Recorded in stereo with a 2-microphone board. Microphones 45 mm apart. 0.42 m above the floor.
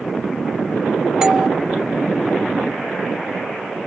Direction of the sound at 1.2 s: 20° right (ahead or behind).